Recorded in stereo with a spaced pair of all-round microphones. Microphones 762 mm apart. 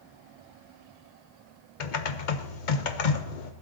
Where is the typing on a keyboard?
75° left (ahead or behind), 1.0 m.